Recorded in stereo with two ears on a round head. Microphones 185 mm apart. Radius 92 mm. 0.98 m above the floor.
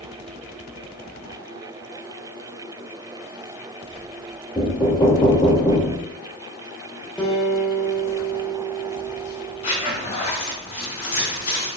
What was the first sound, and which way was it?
Knocking, 20° left (ahead or behind).